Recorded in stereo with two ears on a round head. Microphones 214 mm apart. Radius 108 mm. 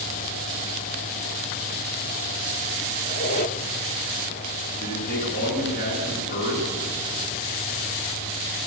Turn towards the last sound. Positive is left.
turn(degrees=45)  # may be behind; listen again after turning